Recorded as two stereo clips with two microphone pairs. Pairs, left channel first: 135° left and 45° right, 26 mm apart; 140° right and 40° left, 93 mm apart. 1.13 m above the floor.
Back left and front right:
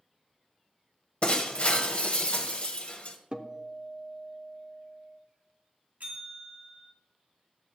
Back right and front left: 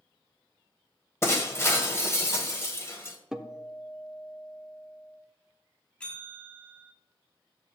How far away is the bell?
About 2 m.